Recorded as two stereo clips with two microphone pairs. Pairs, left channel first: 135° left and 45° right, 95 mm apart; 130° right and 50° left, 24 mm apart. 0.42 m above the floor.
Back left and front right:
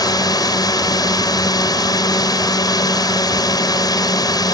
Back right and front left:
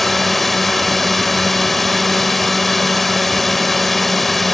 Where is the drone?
155° left.